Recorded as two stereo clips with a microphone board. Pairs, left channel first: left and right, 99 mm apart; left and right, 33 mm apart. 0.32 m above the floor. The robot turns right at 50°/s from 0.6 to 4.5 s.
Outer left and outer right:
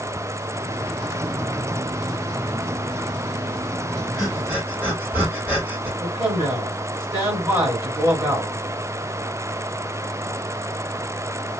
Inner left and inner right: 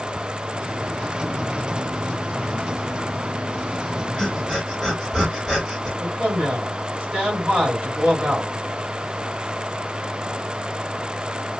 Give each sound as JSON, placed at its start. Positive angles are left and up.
{"t": 4.2, "sound": "breathing", "side_deg": 0, "distance_m": 1.6}
{"t": 6.0, "sound": "a man speaking", "side_deg": -20, "distance_m": 2.0}